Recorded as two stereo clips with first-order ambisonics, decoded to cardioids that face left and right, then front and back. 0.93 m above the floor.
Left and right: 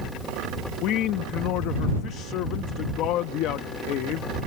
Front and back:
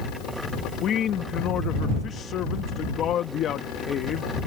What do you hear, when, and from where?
0.8 s a man speaking: 55° left